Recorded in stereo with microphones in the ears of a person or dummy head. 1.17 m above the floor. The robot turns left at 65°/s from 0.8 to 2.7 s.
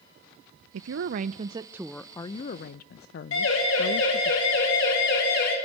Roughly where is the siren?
Left.